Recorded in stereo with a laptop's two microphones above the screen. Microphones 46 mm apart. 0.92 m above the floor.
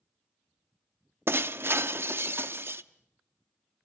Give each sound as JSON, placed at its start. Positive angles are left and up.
{"t": 1.3, "sound": "breaking glass", "side_deg": -60, "distance_m": 0.6}